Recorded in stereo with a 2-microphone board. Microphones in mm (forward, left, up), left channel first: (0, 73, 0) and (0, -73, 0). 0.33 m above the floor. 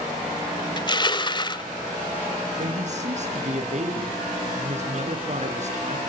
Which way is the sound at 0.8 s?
30° left (ahead or behind).